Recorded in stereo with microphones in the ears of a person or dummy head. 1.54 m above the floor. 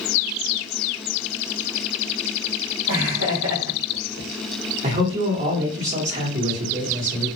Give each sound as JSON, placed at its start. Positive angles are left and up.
{"t": 2.9, "sound": "laughter", "side_deg": -65, "distance_m": 1.1}
{"t": 4.8, "sound": "a man speaking", "side_deg": -35, "distance_m": 1.3}